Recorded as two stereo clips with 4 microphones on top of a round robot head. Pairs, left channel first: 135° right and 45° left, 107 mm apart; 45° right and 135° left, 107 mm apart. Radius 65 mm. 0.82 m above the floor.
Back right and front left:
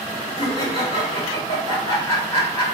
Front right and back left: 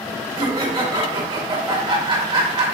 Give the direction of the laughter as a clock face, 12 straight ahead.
6 o'clock.